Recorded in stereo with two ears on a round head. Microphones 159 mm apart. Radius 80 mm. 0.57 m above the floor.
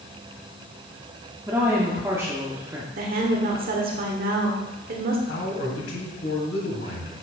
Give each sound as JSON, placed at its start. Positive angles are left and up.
{"t": 1.5, "sound": "a woman speaking", "side_deg": -15, "distance_m": 1.1}
{"t": 3.0, "sound": "a woman speaking", "side_deg": -55, "distance_m": 1.3}
{"t": 5.3, "sound": "a man speaking", "side_deg": 65, "distance_m": 4.0}